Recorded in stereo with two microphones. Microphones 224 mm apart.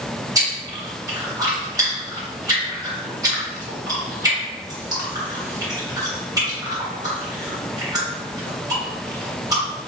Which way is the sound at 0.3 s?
15° right (ahead or behind).